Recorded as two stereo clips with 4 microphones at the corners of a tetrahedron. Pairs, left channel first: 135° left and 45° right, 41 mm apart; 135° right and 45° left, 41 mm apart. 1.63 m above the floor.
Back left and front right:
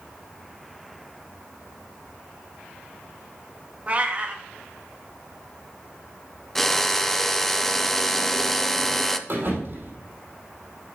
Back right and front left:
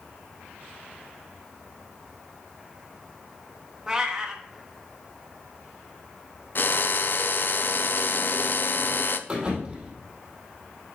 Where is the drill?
140° right, 0.6 m.